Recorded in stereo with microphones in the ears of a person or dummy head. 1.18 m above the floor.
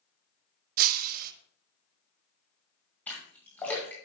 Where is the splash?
5° left (ahead or behind), 1.6 m.